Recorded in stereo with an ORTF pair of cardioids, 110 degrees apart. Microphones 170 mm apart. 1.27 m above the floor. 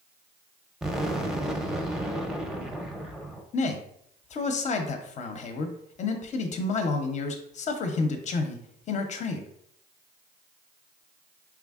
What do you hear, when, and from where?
0.8 s an explosion: 5° right, 0.6 m
3.5 s a man speaking: 45° left, 0.7 m